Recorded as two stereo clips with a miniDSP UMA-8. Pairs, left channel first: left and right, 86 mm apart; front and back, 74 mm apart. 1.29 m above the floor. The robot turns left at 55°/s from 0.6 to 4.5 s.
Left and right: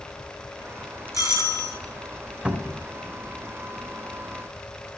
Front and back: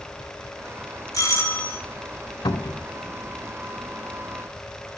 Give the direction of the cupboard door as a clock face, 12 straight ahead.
12 o'clock.